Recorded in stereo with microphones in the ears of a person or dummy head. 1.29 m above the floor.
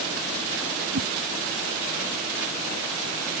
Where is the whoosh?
60° right (ahead or behind).